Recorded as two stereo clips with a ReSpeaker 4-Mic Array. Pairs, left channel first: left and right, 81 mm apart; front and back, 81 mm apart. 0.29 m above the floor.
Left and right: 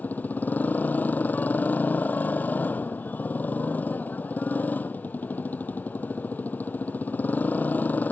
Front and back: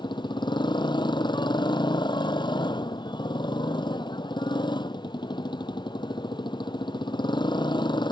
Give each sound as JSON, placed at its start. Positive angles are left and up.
{"t": 0.0, "sound": "a motorcycle", "azimuth_deg": 20}